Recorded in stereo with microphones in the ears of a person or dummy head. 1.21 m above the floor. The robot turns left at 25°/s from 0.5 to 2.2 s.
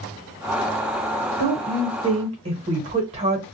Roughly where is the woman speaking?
Right.